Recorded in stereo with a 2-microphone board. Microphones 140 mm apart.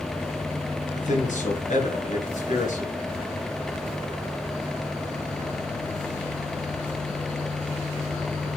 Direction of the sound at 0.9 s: 70° left (ahead or behind).